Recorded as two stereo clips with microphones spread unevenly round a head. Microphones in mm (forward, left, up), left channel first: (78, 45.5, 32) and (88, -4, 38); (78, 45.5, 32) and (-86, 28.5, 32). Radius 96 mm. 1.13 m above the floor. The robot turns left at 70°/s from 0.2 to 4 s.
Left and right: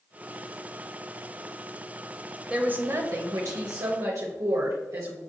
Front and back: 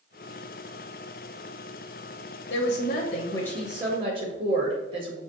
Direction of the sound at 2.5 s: 5° right.